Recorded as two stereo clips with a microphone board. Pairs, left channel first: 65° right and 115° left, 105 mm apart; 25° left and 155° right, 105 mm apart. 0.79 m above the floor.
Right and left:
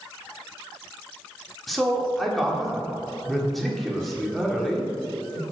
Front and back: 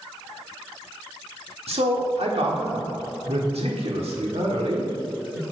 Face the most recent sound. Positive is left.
turn(degrees=-155)